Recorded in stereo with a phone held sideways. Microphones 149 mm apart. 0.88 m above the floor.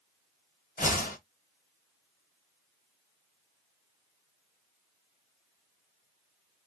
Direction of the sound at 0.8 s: 70° left (ahead or behind).